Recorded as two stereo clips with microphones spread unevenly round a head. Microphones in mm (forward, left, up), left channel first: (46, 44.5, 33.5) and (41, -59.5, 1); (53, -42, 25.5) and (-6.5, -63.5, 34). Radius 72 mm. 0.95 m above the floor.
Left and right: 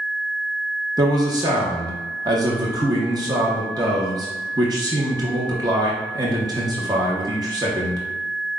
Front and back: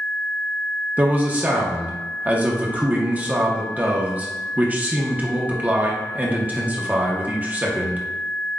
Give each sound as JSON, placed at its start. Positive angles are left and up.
{"t": 1.0, "sound": "a man speaking", "azimuth_deg": -95, "distance_m": 0.9}